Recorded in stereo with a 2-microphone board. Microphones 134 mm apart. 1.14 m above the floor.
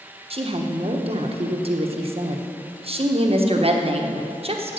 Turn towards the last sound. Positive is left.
turn(degrees=-45)  # may be behind; listen again after turning